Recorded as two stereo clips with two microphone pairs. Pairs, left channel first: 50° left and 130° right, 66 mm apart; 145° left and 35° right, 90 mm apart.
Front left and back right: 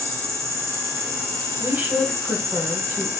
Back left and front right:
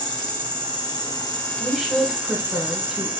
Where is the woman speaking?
110° right, 1.1 m.